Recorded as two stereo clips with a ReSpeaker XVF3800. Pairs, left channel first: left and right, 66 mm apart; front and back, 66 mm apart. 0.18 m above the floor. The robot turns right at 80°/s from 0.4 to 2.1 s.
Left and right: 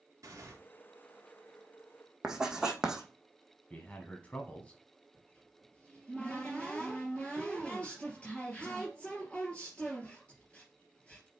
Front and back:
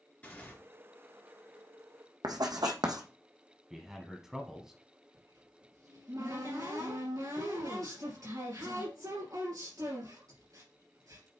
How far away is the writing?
About 1.3 m.